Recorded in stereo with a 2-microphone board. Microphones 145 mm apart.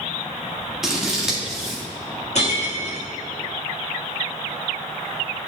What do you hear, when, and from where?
0.8 s scissors: 5° right (ahead or behind), 1.6 m
2.4 s breaking glass: 55° left (ahead or behind), 1.8 m